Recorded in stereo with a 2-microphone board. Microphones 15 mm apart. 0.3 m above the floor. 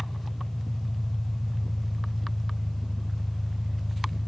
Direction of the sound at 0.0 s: 60° left (ahead or behind).